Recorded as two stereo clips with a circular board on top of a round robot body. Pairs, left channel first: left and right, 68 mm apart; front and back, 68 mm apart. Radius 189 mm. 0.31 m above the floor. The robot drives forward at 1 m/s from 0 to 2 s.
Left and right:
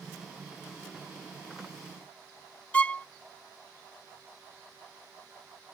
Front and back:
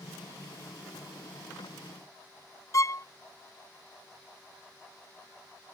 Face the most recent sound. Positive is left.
turn(degrees=20)